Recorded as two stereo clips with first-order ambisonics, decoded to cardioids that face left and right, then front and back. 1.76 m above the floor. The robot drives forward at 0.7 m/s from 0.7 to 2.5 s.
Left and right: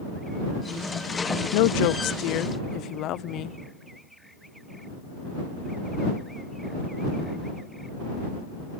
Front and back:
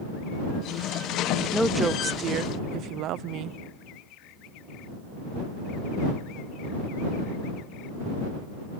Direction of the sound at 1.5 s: 85° left.